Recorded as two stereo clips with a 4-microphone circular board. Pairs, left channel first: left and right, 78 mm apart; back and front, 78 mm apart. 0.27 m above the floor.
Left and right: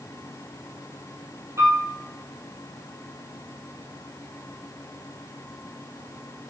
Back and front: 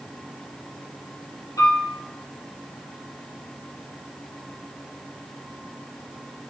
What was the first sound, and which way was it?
A piano, 140° right.